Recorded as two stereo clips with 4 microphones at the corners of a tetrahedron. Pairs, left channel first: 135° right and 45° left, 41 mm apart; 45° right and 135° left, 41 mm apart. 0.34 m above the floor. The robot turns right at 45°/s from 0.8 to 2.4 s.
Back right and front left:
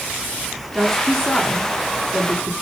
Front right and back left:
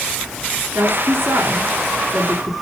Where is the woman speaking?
130° left, 4 m; by 2.5 s 160° right, 4 m.